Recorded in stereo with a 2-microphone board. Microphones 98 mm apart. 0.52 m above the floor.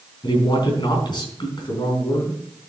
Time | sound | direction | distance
0.2 | a man speaking | 50° left (ahead or behind) | 4 m